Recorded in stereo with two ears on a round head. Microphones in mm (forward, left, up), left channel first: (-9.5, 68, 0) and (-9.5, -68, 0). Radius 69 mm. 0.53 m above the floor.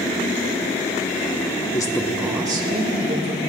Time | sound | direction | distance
1.7 | a man speaking | 25° left (ahead or behind) | 1.0 m